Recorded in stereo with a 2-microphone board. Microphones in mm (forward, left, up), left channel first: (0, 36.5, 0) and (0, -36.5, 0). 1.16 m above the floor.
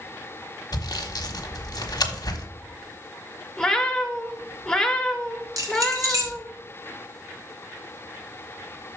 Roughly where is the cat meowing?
Centre.